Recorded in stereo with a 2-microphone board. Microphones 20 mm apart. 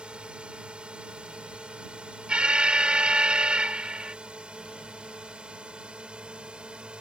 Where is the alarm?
60° right (ahead or behind).